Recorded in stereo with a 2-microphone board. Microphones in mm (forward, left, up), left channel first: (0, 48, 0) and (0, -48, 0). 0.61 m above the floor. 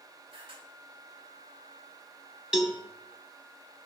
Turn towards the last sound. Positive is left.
turn(degrees=-10)  # may be behind; listen again after turning